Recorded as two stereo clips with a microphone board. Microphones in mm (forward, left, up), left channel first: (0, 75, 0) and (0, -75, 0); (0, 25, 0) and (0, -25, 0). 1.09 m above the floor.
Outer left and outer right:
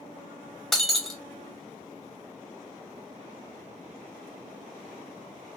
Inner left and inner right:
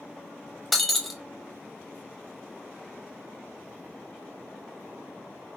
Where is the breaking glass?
Centre (ahead or behind), 0.5 m.